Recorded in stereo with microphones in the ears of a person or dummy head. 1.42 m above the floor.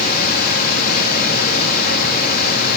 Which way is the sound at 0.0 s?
55° left (ahead or behind).